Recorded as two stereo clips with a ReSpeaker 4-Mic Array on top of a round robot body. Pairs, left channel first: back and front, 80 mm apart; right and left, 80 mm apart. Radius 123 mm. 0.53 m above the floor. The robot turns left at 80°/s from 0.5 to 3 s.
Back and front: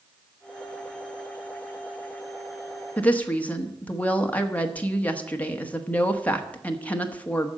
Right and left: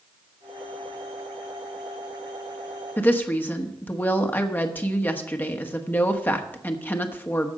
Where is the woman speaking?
125° right, 1.4 m; by 7.5 s 130° right, 1.4 m.